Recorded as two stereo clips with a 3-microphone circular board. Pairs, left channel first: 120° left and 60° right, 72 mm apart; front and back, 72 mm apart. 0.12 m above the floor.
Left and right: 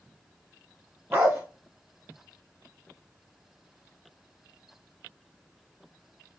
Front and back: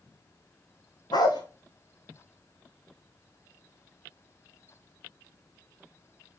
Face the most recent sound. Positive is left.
turn(degrees=0)